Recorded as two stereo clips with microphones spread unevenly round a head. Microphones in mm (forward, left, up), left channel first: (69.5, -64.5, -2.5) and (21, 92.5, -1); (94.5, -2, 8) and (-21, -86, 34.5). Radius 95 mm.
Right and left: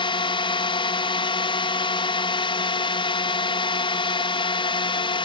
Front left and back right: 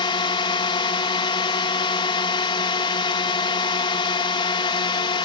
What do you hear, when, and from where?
0.0 s a drone: 15° right